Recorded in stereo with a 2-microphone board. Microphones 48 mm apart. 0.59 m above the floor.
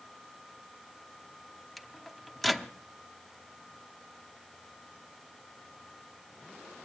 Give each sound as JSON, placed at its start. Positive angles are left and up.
{"t": 1.8, "sound": "a microwave", "side_deg": 5, "distance_m": 0.7}